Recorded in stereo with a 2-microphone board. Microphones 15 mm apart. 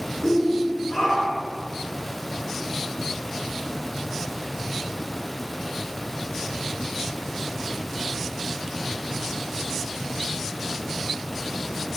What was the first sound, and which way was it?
A shout, 50° left (ahead or behind).